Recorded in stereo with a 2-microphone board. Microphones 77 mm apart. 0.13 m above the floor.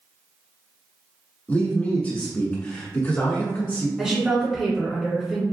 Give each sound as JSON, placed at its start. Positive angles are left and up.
{"t": 1.5, "sound": "a man speaking", "side_deg": 25, "distance_m": 1.2}
{"t": 4.0, "sound": "a woman speaking", "side_deg": -10, "distance_m": 1.6}